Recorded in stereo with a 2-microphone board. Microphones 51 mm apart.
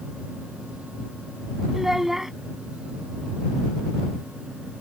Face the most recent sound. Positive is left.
turn(degrees=-5)  # may be behind; listen again after turning